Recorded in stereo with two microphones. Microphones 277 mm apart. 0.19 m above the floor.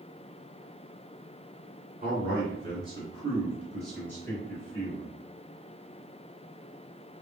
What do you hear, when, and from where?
2.0 s a man speaking: 30° right (ahead or behind), 2.0 m; by 5.1 s 30° left (ahead or behind), 1.6 m